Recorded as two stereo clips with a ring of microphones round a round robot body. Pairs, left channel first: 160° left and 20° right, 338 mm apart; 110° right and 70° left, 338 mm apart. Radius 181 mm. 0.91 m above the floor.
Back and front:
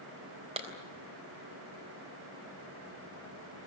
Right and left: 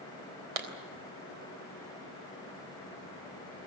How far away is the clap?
About 3.5 m.